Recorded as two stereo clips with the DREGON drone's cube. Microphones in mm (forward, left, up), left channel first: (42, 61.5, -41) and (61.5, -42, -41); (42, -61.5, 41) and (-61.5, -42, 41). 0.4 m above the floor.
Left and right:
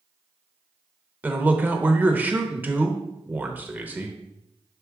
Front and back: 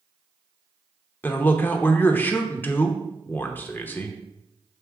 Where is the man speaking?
45° right, 0.8 m.